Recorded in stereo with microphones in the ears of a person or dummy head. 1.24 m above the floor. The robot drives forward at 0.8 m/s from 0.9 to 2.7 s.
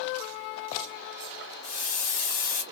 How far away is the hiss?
About 2.0 m.